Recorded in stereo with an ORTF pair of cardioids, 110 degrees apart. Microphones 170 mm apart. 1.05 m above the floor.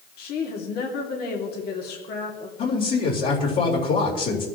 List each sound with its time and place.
0.2 s a woman speaking: 70° left, 2.5 m
2.6 s a man speaking: 60° left, 4 m